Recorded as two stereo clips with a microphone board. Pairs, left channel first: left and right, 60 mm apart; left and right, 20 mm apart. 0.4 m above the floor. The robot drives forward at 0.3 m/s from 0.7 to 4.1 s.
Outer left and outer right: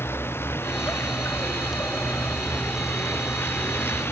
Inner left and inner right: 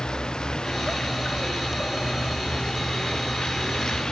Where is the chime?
No chime in this recording.